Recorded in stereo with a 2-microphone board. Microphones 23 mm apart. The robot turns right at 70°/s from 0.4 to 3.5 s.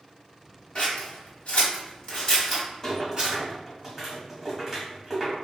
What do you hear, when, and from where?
0.8 s scissors: 45° left (ahead or behind), 1.2 m; by 3.4 s 50° right (ahead or behind), 1.2 m
2.8 s a rattle: 20° left (ahead or behind), 1.2 m; by 5.3 s 15° right (ahead or behind), 1.2 m